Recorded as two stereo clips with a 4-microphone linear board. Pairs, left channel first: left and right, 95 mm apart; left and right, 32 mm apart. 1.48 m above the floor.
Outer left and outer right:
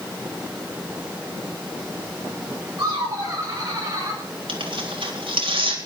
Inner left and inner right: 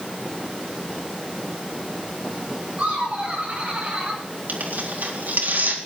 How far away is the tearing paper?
About 3.5 m.